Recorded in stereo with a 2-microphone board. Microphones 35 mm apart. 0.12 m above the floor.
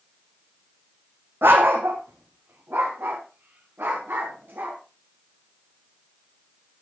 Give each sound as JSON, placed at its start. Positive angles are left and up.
{"t": 1.4, "sound": "a dog barking", "side_deg": -80, "distance_m": 1.6}